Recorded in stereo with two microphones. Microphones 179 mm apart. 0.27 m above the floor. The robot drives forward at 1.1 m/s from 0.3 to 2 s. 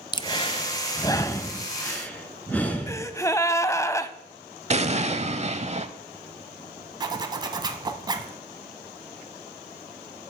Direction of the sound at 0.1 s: 25° left (ahead or behind).